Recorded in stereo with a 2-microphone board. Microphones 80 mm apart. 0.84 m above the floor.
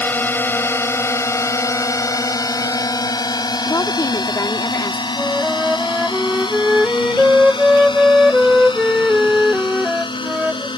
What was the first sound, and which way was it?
A drone, 20° left (ahead or behind).